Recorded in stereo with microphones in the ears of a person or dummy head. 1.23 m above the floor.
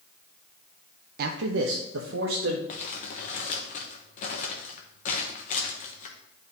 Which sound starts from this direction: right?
A man speaking, at 1.2 s.